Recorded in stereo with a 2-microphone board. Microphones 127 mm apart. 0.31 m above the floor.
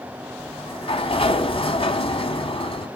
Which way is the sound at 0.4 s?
50° left (ahead or behind).